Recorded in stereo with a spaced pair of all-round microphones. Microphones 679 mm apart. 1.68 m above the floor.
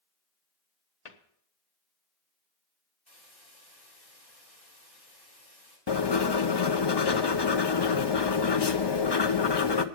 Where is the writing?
40° left (ahead or behind), 0.7 m.